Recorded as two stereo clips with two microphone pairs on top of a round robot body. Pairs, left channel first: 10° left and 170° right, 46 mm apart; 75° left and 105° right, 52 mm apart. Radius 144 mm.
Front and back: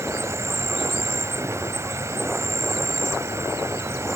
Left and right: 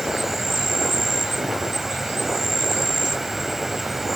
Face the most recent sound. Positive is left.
turn(degrees=170)